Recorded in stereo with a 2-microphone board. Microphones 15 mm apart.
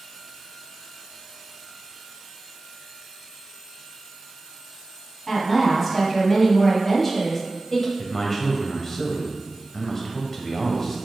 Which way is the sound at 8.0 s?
20° left (ahead or behind).